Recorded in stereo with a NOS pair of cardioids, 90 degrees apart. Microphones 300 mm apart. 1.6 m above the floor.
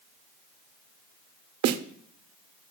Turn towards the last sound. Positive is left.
turn(degrees=-60)